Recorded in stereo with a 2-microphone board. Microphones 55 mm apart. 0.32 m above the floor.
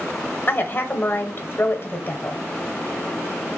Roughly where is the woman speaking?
Left.